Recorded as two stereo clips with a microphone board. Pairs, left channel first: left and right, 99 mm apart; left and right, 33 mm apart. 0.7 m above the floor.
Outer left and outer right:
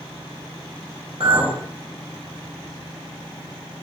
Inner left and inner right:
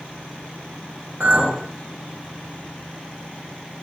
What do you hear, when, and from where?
1.2 s a clink: 70° right (ahead or behind), 1.1 m